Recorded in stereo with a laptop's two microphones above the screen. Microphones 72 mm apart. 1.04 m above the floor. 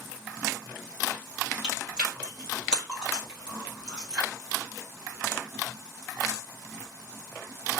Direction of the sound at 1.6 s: 10° right (ahead or behind).